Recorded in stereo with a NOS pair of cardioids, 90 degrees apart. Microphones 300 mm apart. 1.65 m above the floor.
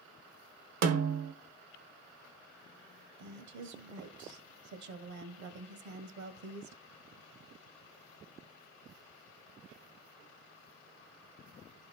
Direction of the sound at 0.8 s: 60° right.